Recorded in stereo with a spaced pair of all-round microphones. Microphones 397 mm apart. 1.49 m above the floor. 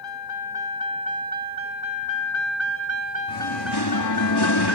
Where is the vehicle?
70° left (ahead or behind); by 4.8 s 40° right (ahead or behind).